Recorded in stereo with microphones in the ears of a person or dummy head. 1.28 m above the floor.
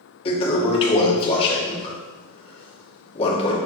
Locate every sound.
0.2 s a toilet flushing: 35° left (ahead or behind), 2 m